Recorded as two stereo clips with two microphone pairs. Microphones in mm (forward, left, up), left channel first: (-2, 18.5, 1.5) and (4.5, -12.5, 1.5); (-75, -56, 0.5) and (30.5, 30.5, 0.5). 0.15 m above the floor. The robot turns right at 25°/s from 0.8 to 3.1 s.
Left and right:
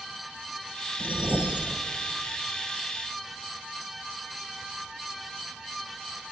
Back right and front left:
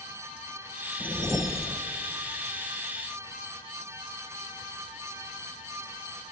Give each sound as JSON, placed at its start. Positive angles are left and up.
{"t": 1.0, "sound": "a whoosh", "azimuth_deg": -40, "distance_m": 1.9}